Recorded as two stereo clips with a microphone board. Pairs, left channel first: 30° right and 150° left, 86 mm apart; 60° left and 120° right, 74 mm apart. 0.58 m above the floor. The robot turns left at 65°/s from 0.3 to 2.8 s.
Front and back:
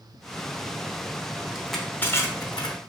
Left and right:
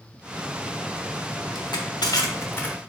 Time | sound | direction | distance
1.6 | crushing | 70° left | 0.7 m